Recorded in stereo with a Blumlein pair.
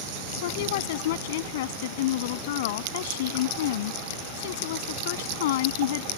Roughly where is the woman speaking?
Ahead left.